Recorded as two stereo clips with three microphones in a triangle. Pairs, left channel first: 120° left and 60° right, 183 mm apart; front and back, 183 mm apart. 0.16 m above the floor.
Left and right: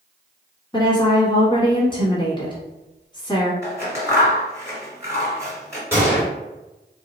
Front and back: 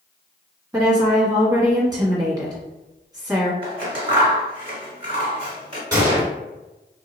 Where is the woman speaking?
140° left, 1.1 m.